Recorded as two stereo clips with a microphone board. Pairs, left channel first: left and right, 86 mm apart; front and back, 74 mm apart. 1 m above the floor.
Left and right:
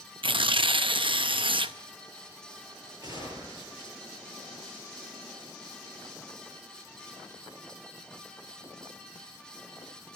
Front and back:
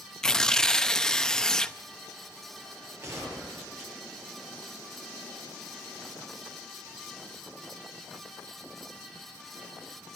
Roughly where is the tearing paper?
Right.